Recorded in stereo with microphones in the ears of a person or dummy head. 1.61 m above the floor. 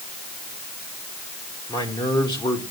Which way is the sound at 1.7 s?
20° left (ahead or behind).